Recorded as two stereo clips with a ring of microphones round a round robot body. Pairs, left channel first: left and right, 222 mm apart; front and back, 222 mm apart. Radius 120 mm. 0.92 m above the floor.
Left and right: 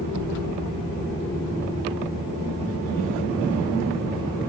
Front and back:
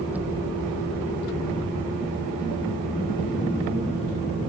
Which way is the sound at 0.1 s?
95° right.